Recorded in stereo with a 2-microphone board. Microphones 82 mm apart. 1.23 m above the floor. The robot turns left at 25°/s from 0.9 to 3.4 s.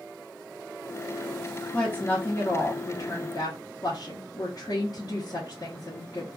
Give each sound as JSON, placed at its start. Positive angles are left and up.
{"t": 1.7, "sound": "a woman speaking", "azimuth_deg": 165, "distance_m": 0.7}